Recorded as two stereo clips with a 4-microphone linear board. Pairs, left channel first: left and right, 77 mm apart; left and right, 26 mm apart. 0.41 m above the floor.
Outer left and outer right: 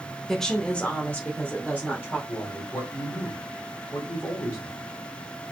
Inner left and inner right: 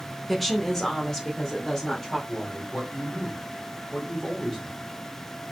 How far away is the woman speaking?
About 0.8 m.